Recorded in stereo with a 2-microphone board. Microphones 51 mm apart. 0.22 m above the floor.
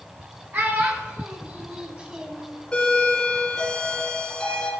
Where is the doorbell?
15° left (ahead or behind), 2.5 m.